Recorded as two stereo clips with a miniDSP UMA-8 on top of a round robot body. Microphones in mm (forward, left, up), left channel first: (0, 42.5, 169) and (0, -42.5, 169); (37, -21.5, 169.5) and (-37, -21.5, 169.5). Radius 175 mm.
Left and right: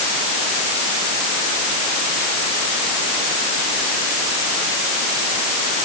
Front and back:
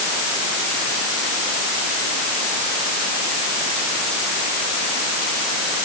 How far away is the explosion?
I don't hear an explosion.